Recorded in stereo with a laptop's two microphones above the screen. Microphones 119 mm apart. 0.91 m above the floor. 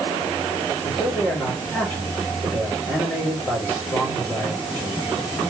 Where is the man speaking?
15° left (ahead or behind), 3 m.